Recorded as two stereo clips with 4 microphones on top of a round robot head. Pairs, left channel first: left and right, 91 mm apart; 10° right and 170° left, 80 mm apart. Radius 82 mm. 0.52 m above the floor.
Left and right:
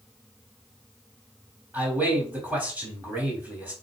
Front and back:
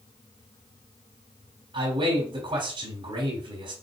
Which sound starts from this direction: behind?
A man speaking, at 1.7 s.